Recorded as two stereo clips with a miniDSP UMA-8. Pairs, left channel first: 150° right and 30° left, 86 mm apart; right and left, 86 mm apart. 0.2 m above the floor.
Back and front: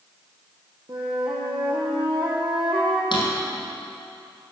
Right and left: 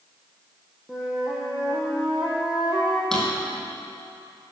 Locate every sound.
0.9 s a flute: 10° left, 2.5 m
3.1 s a drawer: 175° right, 3 m